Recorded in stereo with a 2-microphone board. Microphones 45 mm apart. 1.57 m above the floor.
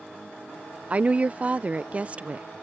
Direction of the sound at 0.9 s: 30° right (ahead or behind).